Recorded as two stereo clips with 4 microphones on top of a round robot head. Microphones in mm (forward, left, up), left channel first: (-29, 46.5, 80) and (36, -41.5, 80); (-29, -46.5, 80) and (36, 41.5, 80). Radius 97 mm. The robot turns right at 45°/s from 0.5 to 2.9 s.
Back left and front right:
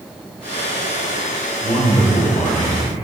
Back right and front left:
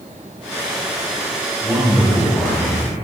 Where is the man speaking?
125° left, 5.5 m; by 2.8 s straight behind, 5.5 m.